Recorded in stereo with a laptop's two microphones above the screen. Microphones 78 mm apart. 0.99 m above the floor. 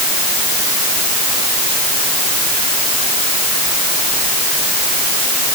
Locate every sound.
Only background noise.